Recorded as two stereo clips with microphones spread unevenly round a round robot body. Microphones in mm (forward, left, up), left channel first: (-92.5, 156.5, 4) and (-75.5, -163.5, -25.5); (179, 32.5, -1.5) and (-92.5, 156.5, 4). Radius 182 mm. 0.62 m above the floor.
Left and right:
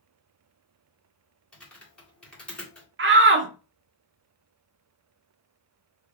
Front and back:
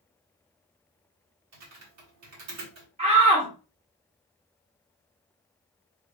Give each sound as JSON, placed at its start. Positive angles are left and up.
{"t": 1.5, "sound": "typing on a keyboard", "azimuth_deg": -175, "distance_m": 1.9}
{"t": 3.0, "sound": "a shout", "azimuth_deg": -135, "distance_m": 0.9}